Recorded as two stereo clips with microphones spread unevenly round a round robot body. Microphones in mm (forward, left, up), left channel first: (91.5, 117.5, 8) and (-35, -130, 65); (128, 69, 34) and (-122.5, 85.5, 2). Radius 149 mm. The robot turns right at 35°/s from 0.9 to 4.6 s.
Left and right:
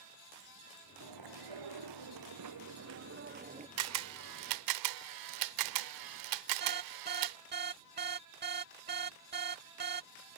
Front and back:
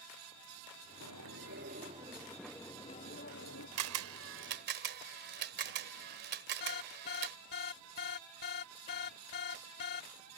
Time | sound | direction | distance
1.0 | chewing | 145° right | ?
3.8 | a camera shutter | 160° right | ?
6.6 | an alarm | 60° right | ?